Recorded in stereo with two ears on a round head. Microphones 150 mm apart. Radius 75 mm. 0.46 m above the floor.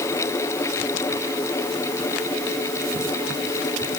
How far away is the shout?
No shout in this recording.